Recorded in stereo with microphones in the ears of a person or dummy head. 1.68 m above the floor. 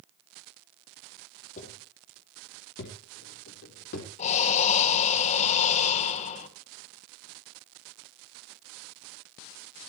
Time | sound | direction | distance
1.6 | footsteps | 45° left (ahead or behind) | 3.5 m
4.2 | breathing | 35° left (ahead or behind) | 1.8 m